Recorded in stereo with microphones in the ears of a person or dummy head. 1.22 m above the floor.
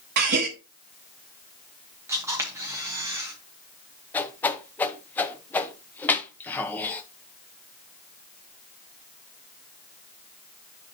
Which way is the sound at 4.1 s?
15° left (ahead or behind).